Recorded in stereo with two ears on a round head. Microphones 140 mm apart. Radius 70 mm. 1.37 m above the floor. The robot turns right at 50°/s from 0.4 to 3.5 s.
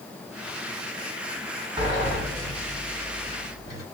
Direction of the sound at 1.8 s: 25° right.